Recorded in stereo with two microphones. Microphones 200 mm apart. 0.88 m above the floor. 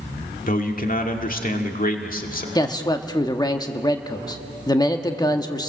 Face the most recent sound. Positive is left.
turn(degrees=20)  # may be behind; listen again after turning